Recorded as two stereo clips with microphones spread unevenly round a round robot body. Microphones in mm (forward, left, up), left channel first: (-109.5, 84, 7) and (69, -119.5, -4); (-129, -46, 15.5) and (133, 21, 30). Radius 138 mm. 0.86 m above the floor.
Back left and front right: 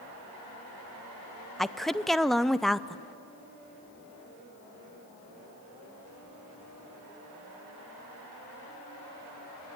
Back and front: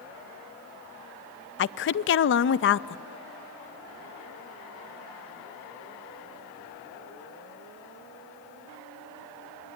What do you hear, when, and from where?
1.6 s a woman speaking: 140° right, 0.5 m